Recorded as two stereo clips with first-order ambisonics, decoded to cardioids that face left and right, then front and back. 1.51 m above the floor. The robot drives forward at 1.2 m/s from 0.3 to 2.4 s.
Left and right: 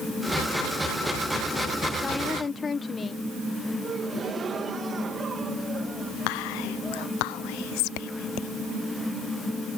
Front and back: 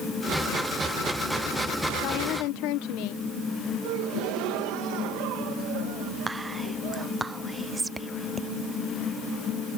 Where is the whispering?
95° left.